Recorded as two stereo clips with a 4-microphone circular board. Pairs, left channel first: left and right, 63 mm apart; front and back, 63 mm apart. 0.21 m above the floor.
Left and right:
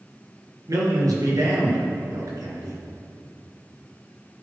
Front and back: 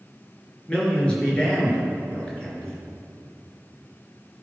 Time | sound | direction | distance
0.7 | a man speaking | 70° right | 3 m